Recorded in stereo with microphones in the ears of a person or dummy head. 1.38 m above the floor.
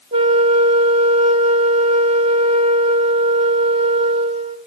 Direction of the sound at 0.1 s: 35° right (ahead or behind).